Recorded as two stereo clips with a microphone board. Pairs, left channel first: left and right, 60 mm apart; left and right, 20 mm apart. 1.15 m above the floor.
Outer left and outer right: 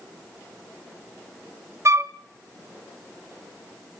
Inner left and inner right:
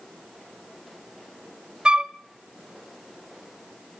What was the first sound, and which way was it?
A flute, 55° right (ahead or behind).